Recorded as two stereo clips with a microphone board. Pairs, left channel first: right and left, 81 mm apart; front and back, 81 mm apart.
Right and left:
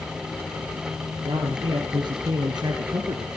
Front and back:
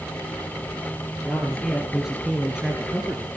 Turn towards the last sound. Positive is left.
turn(degrees=110)